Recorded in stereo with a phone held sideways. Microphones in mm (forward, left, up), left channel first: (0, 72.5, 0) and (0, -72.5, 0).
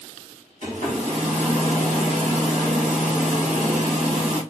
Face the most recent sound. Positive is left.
turn(degrees=-60)  # may be behind; listen again after turning